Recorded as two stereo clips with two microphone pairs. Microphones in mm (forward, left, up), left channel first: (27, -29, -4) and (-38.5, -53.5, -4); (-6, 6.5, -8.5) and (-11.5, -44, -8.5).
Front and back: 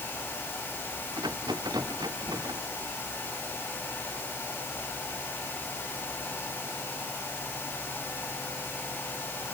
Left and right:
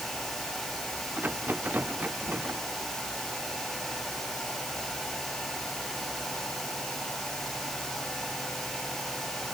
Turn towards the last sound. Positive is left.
turn(degrees=-150)